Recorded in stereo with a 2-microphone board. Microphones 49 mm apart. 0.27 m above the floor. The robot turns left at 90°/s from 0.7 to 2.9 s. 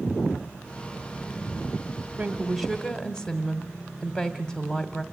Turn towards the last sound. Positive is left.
turn(degrees=160)